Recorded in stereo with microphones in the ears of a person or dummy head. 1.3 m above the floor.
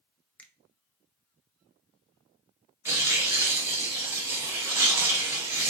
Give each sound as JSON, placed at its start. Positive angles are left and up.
{"t": 0.4, "sound": "a finger snap", "side_deg": 10, "distance_m": 0.6}
{"t": 2.9, "sound": "tearing paper", "side_deg": -15, "distance_m": 0.8}